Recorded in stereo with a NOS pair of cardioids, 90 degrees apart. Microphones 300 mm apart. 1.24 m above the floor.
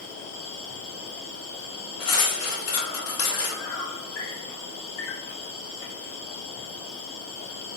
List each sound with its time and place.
0.0 s an insect: 50° left, 1.0 m
2.0 s cutlery clinking: 50° left, 1.2 m